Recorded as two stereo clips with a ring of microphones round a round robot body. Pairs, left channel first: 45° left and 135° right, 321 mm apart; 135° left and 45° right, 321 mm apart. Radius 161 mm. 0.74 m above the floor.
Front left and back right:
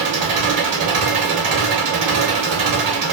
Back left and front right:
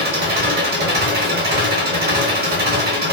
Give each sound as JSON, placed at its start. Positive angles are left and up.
{"t": 0.0, "sound": "an engine running", "azimuth_deg": -105, "distance_m": 0.9}